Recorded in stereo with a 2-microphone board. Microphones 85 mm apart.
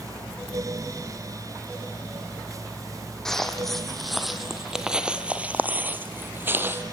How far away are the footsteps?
About 2.5 m.